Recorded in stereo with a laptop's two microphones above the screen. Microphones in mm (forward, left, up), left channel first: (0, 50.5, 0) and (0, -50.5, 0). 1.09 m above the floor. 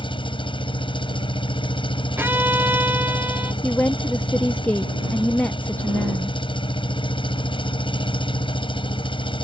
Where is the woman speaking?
15° left (ahead or behind).